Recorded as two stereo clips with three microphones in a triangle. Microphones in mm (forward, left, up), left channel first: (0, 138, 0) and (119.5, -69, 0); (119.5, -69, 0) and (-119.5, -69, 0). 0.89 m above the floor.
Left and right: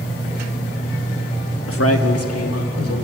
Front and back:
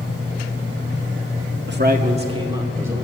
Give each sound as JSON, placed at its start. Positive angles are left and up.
{"t": 1.7, "sound": "a man speaking", "azimuth_deg": 145, "distance_m": 1.2}